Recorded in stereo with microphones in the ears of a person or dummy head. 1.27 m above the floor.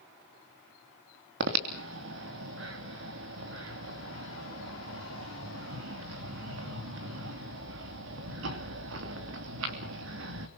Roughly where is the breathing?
Right.